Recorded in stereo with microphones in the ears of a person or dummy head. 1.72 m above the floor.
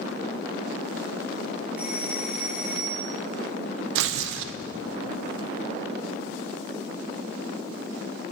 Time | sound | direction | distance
1.8 | a doorbell | 5° right (ahead or behind) | 0.8 m
4.0 | tearing paper | 70° right (ahead or behind) | 0.8 m